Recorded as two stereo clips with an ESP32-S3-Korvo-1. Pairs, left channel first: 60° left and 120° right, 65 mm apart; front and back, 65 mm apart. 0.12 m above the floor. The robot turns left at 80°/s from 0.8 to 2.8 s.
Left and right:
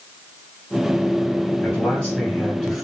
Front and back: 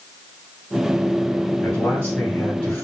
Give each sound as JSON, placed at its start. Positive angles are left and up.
{"t": 1.6, "sound": "a man speaking", "azimuth_deg": 55, "distance_m": 1.2}